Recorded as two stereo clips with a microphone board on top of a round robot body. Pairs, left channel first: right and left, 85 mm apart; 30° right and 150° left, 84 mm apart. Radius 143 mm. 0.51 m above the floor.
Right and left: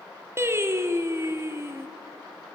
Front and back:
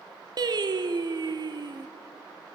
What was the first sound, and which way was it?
Singing, 140° left.